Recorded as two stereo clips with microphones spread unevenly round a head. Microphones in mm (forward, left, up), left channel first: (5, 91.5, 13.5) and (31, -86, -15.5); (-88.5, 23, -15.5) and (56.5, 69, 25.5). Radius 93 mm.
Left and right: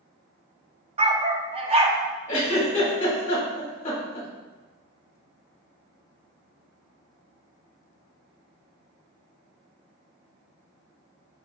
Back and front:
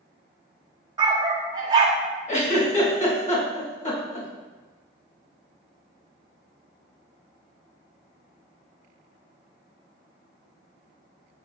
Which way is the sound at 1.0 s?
25° right.